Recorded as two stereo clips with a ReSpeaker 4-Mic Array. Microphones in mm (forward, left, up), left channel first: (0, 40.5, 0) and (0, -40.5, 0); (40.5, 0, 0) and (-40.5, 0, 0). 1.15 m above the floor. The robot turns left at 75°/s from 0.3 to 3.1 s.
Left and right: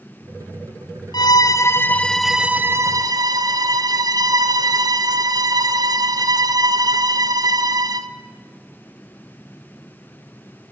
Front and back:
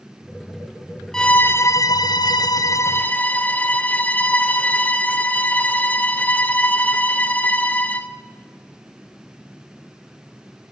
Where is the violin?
80° left, 1.0 m; by 8.1 s 65° right, 1.0 m.